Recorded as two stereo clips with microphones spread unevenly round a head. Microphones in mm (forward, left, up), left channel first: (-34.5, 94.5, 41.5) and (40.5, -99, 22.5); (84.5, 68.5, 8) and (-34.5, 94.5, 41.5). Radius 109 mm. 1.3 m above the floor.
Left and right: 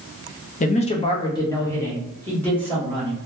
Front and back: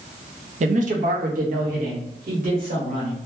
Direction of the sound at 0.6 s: 155° left.